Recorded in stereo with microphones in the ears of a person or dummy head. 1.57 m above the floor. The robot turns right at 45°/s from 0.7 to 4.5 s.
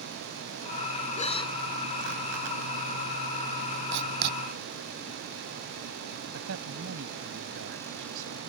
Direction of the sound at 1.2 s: 40° left (ahead or behind).